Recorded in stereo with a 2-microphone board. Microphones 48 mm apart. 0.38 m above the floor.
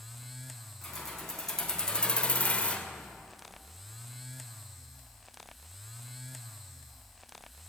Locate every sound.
0.8 s keys jangling: 10° left (ahead or behind), 2.5 m; by 2.9 s 20° left (ahead or behind), 0.9 m